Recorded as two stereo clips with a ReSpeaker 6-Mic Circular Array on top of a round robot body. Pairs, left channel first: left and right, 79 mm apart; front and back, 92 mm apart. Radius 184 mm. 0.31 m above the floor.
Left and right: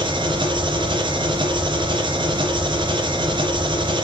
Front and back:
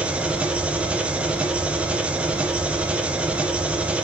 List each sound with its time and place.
0.0 s an engine running: 100° right, 3 m